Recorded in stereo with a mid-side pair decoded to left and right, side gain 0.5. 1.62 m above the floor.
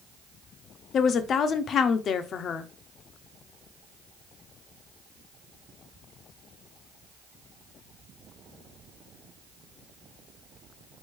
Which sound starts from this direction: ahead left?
A woman speaking, at 0.9 s.